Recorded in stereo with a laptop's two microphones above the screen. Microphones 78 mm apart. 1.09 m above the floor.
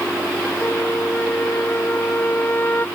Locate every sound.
0.6 s a flute: 25° left (ahead or behind)